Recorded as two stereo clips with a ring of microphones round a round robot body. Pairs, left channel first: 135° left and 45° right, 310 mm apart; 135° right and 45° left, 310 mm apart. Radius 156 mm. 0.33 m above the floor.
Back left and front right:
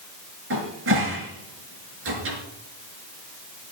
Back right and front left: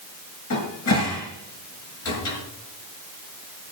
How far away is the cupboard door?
About 5.5 m.